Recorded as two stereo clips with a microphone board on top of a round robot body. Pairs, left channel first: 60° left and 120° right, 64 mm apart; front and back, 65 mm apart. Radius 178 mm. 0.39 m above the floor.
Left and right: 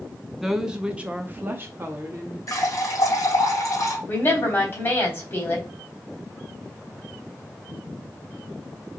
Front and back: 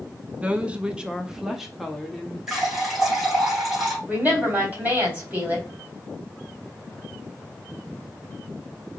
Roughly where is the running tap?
Left.